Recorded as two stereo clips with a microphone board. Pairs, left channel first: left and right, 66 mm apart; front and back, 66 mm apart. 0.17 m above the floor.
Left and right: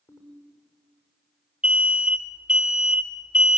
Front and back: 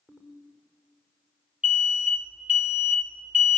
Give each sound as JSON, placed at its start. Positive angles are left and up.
{"t": 0.1, "sound": "a ringtone", "azimuth_deg": 105, "distance_m": 5.5}
{"t": 1.6, "sound": "an alarm", "azimuth_deg": -145, "distance_m": 1.7}